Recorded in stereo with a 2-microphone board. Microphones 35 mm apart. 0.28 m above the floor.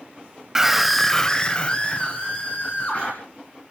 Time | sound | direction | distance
0.6 | a scream | 15° right (ahead or behind) | 1.2 m